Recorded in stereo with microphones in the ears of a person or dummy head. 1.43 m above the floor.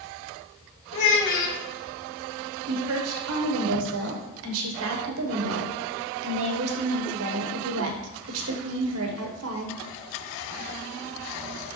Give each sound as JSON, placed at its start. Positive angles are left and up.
{"t": 0.9, "sound": "a child speaking", "side_deg": 65, "distance_m": 1.7}
{"t": 2.7, "sound": "a woman speaking", "side_deg": -75, "distance_m": 1.2}